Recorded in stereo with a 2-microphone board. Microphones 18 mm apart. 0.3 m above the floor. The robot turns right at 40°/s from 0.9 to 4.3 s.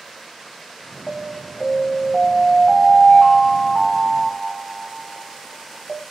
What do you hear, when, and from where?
1.1 s an alarm: 20° right (ahead or behind), 1.7 m; by 6.0 s 5° left (ahead or behind), 1.7 m